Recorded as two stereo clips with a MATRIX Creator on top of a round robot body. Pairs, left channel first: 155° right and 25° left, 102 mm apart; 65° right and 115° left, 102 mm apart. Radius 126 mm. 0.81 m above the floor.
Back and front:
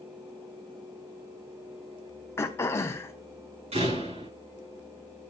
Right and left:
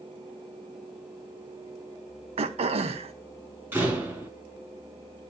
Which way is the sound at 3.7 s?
40° left.